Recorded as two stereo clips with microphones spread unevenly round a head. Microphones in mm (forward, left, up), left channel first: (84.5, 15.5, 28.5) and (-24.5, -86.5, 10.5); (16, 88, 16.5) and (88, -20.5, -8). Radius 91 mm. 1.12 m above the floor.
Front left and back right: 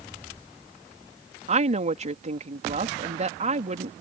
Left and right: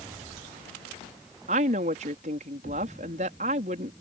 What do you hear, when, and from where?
1.5 s a woman speaking: 100° right